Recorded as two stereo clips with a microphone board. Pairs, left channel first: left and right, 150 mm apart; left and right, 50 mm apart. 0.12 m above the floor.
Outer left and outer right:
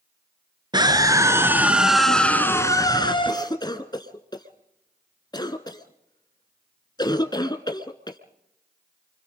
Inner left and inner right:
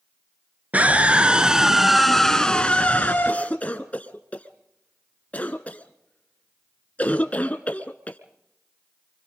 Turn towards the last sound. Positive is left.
turn(degrees=30)  # may be behind; listen again after turning